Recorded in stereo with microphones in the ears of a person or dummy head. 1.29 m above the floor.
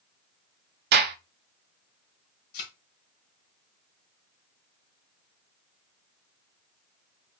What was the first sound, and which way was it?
A gunshot, 50° right (ahead or behind).